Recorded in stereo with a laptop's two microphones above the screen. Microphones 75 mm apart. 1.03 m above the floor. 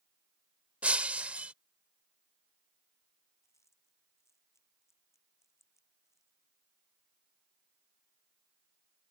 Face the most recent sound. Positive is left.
turn(degrees=40)  # may be behind; listen again after turning